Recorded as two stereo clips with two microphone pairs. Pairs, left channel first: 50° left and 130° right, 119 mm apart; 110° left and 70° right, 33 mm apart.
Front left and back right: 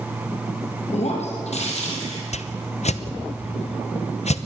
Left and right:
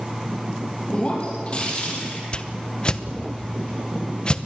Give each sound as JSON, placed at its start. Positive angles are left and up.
{"t": 0.9, "sound": "breaking glass", "azimuth_deg": 60, "distance_m": 5.0}
{"t": 2.3, "sound": "a whoosh", "azimuth_deg": 55, "distance_m": 0.9}